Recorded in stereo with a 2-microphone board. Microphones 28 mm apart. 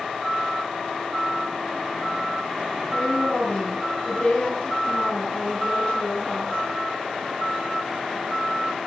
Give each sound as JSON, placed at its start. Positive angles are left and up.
{"t": 2.9, "sound": "a woman speaking", "side_deg": 40, "distance_m": 6.5}